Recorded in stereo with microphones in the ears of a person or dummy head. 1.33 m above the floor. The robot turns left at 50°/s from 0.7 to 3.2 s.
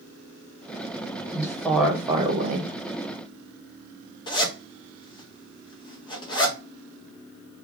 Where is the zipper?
25° left (ahead or behind), 0.5 m.